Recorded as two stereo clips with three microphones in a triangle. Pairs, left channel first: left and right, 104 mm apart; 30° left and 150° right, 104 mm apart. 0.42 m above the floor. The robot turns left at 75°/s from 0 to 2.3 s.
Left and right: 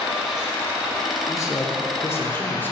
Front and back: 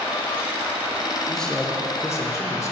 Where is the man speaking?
120° left, 0.8 m; by 2.7 s 40° left, 0.8 m.